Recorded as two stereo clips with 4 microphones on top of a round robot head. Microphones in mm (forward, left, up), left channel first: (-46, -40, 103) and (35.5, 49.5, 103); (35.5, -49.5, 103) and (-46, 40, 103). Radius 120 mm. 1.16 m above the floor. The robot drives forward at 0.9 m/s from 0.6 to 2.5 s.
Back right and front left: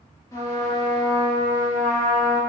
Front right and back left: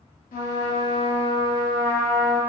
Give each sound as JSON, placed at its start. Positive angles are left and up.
{"t": 0.3, "sound": "a trumpet", "azimuth_deg": -65, "distance_m": 1.1}